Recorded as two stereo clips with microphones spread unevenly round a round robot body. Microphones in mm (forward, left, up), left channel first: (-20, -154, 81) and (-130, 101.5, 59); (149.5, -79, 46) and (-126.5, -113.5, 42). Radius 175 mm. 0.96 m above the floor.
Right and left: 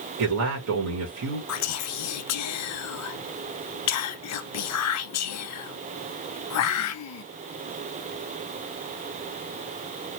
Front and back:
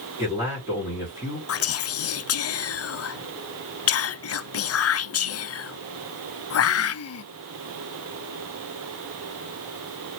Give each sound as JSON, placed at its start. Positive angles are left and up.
{"t": 0.2, "sound": "a man speaking", "azimuth_deg": 105, "distance_m": 1.3}
{"t": 1.5, "sound": "whispering", "azimuth_deg": -30, "distance_m": 0.6}